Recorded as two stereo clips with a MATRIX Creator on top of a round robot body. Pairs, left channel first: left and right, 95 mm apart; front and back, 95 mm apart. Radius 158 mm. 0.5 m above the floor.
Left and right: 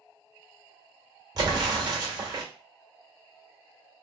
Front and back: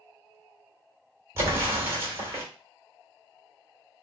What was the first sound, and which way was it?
An explosion, 125° right.